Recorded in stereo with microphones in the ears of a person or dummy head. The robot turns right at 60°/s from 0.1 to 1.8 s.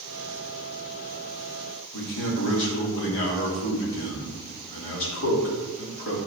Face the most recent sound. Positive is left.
turn(degrees=70)  # may be behind; listen again after turning